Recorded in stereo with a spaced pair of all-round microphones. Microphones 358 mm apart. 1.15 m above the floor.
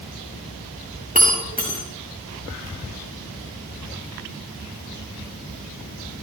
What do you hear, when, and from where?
1.1 s breaking glass: 25° right (ahead or behind), 8 m